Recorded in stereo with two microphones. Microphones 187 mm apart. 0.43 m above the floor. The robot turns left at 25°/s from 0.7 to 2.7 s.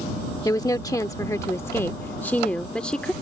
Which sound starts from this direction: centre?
A woman speaking, at 0.5 s.